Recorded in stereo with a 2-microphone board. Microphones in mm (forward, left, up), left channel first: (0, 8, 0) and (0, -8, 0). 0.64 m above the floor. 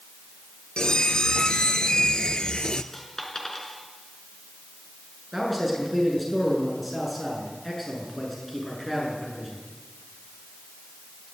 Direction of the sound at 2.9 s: 20° left (ahead or behind).